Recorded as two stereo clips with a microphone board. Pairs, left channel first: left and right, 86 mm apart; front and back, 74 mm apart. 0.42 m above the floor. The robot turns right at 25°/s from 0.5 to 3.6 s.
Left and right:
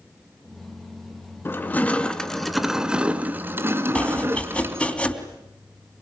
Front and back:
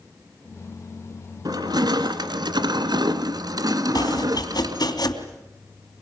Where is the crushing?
155° left, 1.8 m; by 5.0 s 155° right, 1.8 m.